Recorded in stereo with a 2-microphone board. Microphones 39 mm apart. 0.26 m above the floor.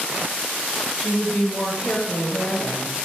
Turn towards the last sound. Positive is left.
turn(degrees=65)  # may be behind; listen again after turning